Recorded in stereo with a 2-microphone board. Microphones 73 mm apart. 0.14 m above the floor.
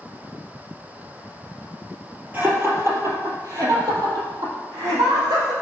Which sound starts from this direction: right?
Laughter, at 2.3 s.